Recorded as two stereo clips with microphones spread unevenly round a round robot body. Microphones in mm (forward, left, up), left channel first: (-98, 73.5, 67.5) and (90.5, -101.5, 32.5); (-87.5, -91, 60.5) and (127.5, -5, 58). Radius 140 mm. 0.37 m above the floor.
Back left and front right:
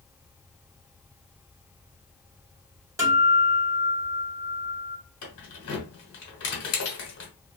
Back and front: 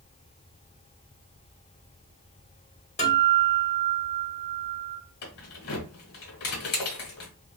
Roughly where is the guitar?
Right.